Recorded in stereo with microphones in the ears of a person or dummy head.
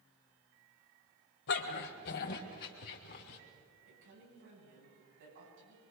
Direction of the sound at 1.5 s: 60° left (ahead or behind).